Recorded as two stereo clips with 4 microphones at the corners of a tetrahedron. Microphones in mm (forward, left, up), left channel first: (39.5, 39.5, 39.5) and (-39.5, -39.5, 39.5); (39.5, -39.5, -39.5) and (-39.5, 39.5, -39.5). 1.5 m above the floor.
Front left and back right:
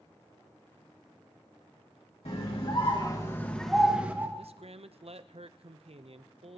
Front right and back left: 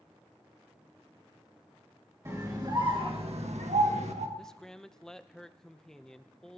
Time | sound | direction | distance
2.2 | a scream | 75° left | 2.5 m
4.4 | a man speaking | 130° right | 0.7 m